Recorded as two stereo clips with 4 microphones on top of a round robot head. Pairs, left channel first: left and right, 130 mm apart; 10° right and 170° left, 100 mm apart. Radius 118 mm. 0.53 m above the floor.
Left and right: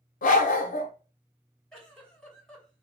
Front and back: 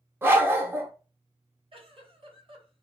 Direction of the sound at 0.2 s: 100° left.